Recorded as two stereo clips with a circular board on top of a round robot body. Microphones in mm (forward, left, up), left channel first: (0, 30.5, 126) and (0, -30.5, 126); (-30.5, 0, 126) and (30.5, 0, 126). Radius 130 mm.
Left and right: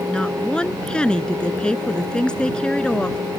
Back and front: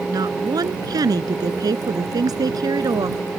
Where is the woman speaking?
15° left.